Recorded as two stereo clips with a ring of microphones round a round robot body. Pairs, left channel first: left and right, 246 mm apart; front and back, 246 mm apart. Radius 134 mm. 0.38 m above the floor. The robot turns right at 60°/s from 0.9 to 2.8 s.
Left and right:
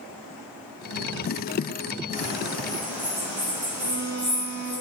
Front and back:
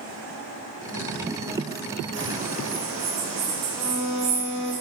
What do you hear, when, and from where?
2.1 s a bird: 145° left, 1.7 m; by 4.8 s 175° right, 1.7 m
3.8 s a violin: 70° right, 1.5 m